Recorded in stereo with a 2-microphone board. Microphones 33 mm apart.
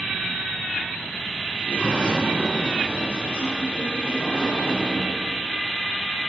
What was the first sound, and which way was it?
A sliding door, 40° left (ahead or behind).